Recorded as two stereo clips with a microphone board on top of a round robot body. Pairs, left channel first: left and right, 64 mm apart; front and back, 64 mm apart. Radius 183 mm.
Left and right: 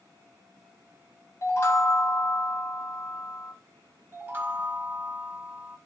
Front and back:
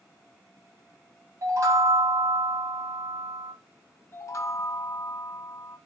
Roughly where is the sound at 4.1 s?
Ahead right.